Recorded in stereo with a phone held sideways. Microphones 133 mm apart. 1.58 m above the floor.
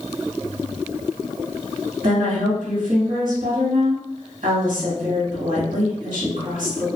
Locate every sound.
2.0 s a woman speaking: 75° right (ahead or behind), 1.3 m